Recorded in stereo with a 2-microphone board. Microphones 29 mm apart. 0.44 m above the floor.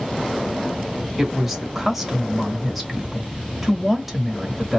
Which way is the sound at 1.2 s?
5° right (ahead or behind).